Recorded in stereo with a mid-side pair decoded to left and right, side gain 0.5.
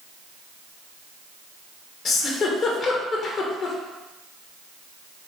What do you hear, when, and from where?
2.0 s a giggle: 50° left, 1.3 m